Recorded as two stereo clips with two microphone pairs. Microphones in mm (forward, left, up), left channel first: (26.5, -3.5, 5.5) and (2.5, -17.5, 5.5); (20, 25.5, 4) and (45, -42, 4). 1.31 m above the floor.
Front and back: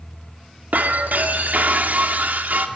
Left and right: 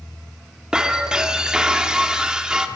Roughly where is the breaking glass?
Behind right.